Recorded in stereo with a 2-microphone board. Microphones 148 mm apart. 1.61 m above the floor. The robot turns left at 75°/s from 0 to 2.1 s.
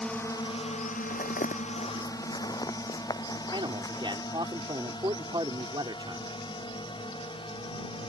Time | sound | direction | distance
0.0 | a drone | 5° left (ahead or behind) | ?
1.1 | footsteps | 60° left (ahead or behind) | ?
3.5 | a man speaking | 35° right (ahead or behind) | ?